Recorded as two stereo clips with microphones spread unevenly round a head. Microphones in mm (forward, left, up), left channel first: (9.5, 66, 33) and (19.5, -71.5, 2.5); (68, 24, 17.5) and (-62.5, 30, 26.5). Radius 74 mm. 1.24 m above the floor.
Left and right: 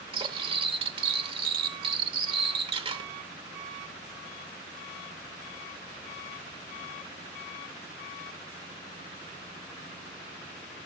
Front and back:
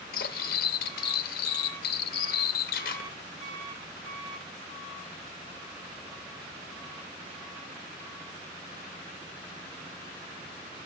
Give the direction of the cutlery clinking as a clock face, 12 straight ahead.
1 o'clock.